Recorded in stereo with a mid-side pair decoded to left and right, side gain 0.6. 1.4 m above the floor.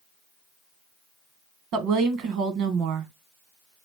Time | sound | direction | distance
1.7 | a woman speaking | 70° right | 1.0 m